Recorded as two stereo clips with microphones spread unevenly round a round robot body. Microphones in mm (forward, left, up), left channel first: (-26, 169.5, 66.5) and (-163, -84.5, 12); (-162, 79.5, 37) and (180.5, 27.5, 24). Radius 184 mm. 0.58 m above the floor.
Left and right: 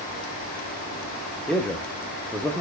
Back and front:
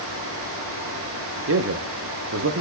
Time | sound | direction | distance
1.5 | a man speaking | 35° right | 0.7 m